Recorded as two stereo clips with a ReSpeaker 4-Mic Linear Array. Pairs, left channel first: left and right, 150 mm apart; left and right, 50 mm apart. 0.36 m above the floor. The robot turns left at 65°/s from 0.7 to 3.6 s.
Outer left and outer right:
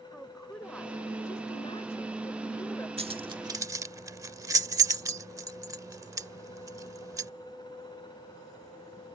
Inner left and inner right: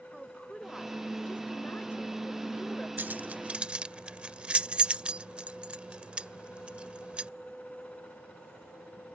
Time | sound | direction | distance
0.1 | a woman speaking | 175° left | ?
3.0 | keys jangling | 40° right (ahead or behind) | ?